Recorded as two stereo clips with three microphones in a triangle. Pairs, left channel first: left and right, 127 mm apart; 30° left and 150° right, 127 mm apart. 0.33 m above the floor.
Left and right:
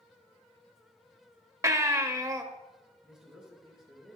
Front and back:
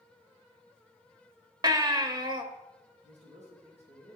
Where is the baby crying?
130° right, 0.9 m.